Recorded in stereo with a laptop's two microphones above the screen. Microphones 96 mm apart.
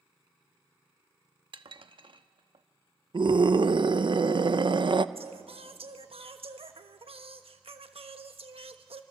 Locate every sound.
1.5 s dishes clattering: 60° right (ahead or behind), 0.9 m
3.1 s a scream: 55° right (ahead or behind), 0.6 m
5.2 s singing: 75° right (ahead or behind), 1.1 m